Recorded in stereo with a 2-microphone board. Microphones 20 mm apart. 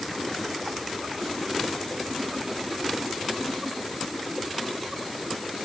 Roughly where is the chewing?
No chewing in this recording.